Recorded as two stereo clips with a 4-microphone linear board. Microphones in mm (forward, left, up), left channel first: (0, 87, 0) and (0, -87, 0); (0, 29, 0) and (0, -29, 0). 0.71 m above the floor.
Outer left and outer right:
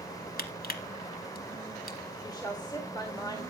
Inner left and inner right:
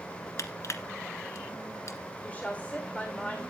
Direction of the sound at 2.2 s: 25° left (ahead or behind).